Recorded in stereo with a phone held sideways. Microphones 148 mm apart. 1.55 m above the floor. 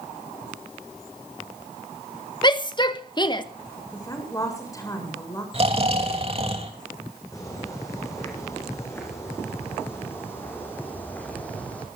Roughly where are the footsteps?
Left.